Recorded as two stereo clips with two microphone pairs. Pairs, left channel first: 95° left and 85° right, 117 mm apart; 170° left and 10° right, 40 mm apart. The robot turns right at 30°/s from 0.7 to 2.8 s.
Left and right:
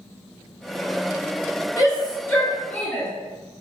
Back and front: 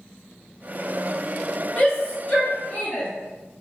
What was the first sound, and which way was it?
A shout, 135° left.